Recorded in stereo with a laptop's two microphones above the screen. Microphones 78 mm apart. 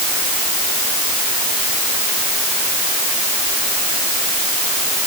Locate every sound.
Only background noise.